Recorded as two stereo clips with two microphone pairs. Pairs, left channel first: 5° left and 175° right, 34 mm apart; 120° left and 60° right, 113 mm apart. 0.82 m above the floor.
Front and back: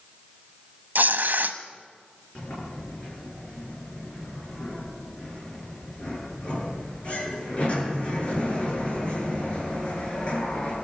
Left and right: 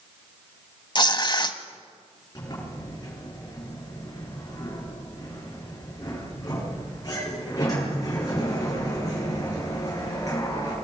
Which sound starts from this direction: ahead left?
A sliding door, at 2.4 s.